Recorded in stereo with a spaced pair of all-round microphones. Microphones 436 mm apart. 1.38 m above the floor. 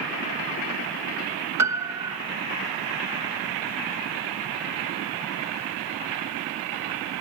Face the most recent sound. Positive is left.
turn(degrees=-40)  # may be behind; listen again after turning